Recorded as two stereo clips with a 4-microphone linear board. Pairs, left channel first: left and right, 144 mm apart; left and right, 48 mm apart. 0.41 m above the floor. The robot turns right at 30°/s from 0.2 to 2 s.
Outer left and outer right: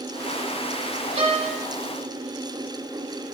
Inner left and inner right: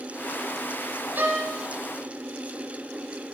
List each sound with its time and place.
1.1 s a violin: 50° right (ahead or behind), 1.2 m; by 1.5 s 60° right (ahead or behind), 1.2 m